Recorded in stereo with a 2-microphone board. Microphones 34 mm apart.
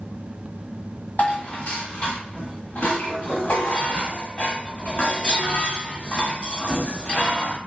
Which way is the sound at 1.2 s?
45° left (ahead or behind).